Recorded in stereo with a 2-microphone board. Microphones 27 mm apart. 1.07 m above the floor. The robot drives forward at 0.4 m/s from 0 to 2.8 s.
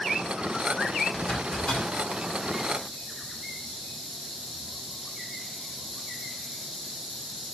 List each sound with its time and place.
1.1 s a zipper: 40° left (ahead or behind), 6.5 m; by 2.1 s 35° left (ahead or behind), 7 m